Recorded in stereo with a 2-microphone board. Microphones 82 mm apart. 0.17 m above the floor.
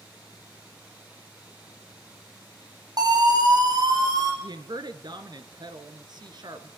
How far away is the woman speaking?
About 2.5 m.